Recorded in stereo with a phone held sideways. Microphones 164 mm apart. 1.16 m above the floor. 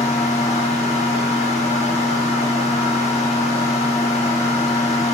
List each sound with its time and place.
0.0 s a fan: 40° left (ahead or behind), 1.3 m